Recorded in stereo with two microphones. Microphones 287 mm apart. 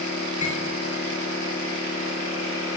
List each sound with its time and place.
0.4 s cutlery clinking: 75° left (ahead or behind), 2.5 m